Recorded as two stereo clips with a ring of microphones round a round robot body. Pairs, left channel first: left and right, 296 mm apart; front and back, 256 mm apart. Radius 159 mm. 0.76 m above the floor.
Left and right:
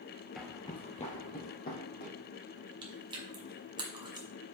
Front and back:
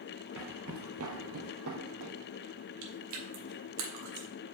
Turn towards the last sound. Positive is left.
turn(degrees=-165)